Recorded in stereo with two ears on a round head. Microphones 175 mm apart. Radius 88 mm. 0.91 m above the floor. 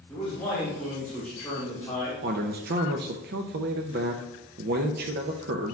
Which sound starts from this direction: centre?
A man speaking, at 0.1 s.